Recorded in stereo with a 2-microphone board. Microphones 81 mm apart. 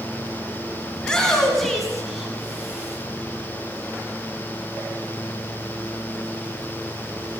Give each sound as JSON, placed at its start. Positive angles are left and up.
{"t": 1.0, "sound": "a shout", "side_deg": 10, "distance_m": 4.0}